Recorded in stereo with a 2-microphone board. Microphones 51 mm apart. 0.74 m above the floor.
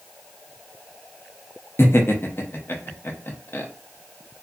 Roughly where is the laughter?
Left.